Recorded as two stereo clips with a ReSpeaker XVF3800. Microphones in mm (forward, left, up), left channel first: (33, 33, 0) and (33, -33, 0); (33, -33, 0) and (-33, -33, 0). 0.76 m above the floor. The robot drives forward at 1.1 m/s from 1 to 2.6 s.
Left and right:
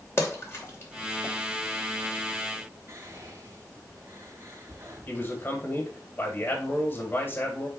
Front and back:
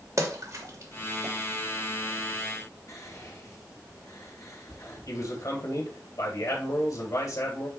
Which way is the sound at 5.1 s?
30° left.